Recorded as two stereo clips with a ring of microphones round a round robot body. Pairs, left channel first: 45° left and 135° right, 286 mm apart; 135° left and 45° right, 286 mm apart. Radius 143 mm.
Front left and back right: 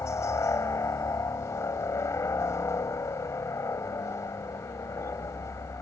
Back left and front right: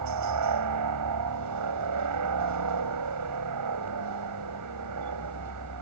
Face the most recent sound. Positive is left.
turn(degrees=-35)